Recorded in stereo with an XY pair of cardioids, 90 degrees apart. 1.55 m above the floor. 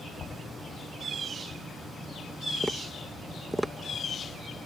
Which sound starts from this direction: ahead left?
Knocking, at 0.2 s.